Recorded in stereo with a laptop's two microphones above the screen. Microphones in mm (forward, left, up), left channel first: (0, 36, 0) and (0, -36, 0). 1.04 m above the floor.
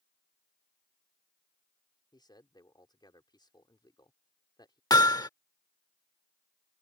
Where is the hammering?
65° left (ahead or behind).